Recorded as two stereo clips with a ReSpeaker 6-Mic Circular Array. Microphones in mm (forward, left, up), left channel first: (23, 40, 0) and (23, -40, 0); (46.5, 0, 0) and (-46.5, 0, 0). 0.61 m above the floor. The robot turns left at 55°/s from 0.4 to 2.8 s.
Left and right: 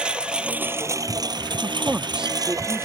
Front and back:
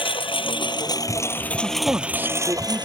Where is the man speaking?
125° right; by 2.9 s 170° left.